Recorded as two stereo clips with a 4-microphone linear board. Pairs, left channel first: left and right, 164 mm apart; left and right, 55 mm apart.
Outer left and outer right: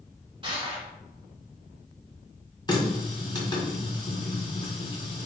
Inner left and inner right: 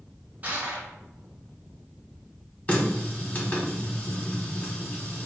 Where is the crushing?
30° right (ahead or behind), 1.3 m.